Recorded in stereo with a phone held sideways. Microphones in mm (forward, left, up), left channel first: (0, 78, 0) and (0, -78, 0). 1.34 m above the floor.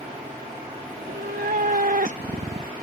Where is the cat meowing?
70° right (ahead or behind); by 2.7 s 30° right (ahead or behind).